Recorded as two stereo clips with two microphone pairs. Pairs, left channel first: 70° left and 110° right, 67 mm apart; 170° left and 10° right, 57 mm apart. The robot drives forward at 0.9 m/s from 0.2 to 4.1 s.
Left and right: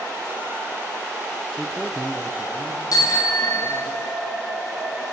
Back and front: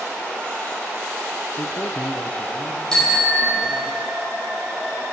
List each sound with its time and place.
1.6 s a man speaking: 150° left, 0.6 m; by 3.9 s 175° left, 2.5 m
2.9 s a bicycle bell: 95° left, 5.5 m; by 4.1 s 105° left, 5.5 m